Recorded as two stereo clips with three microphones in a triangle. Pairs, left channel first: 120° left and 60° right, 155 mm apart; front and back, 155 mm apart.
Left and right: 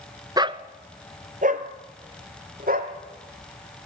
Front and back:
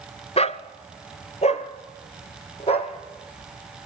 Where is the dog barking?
10° right, 0.8 m; by 2.9 s 50° right, 3 m.